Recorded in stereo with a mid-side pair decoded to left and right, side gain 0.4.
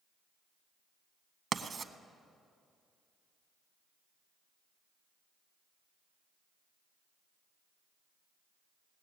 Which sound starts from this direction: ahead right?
Writing, at 1.5 s.